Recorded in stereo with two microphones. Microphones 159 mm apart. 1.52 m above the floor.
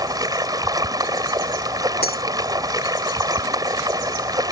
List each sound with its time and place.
0.0 s running water: 25° right (ahead or behind)
2.0 s breaking glass: 75° left (ahead or behind)